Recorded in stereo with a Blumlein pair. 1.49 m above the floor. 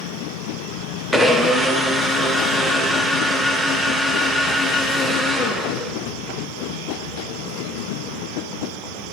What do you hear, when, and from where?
1.1 s a blender: straight ahead, 0.5 m